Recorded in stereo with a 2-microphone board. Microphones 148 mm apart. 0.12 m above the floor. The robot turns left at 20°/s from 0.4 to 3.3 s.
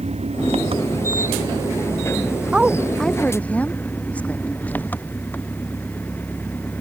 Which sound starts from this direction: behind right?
An engine running, at 0.0 s.